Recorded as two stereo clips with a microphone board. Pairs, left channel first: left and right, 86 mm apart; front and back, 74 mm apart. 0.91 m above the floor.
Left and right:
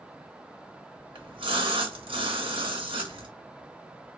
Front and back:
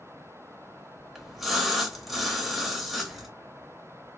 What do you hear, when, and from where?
1.1 s a splash: 95° right, 0.7 m